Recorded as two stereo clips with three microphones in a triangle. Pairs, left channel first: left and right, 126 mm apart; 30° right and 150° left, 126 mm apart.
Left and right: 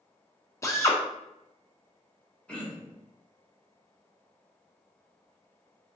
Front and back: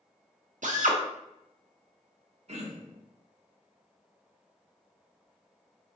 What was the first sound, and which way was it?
A drill, 155° left.